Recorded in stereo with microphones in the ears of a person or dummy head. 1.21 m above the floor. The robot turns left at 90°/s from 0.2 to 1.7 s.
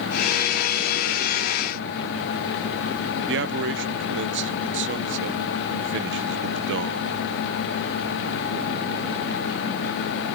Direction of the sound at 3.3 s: 60° right (ahead or behind).